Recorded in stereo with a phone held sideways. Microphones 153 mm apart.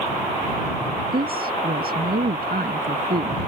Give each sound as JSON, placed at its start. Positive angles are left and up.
{"t": 1.1, "sound": "a woman speaking", "side_deg": -75}